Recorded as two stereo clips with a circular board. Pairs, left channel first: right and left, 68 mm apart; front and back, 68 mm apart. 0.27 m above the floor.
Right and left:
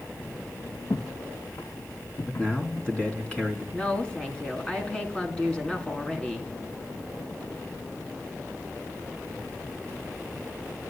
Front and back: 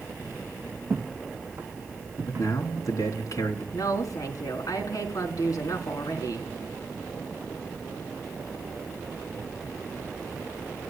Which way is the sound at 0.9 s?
115° right.